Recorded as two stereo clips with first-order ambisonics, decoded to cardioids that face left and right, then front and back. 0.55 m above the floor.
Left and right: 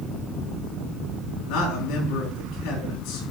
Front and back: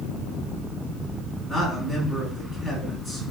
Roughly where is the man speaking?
Left.